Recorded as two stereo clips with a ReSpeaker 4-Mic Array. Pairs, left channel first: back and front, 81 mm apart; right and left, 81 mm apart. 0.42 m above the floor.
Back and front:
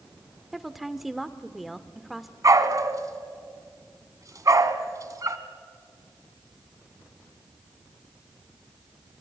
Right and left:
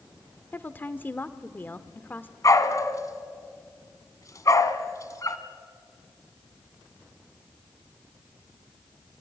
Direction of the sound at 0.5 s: 85° right.